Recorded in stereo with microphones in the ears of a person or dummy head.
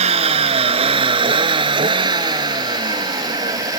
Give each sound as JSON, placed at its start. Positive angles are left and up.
{"t": 0.0, "sound": "a vehicle", "side_deg": -40}